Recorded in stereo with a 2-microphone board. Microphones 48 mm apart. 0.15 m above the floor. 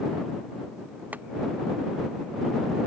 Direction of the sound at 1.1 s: 35° right (ahead or behind).